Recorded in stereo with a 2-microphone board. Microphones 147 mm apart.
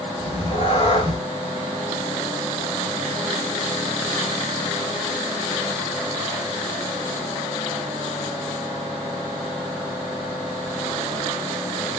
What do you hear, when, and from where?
0.2 s a cat meowing: 40° left (ahead or behind), 0.8 m